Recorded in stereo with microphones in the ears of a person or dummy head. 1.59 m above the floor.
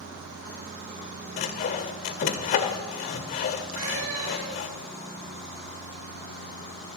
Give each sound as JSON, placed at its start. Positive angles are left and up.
{"t": 1.4, "sound": "sawing", "side_deg": 45, "distance_m": 1.8}
{"t": 3.7, "sound": "a cat meowing", "side_deg": -80, "distance_m": 5.5}